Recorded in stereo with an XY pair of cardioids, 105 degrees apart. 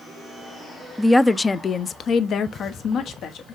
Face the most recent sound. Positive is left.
turn(degrees=70)